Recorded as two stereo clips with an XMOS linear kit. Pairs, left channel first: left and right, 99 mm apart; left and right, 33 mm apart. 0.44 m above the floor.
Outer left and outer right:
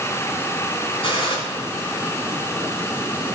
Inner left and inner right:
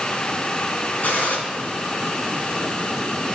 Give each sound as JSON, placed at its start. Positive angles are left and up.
{"t": 1.0, "sound": "a gunshot", "side_deg": 65, "distance_m": 3.0}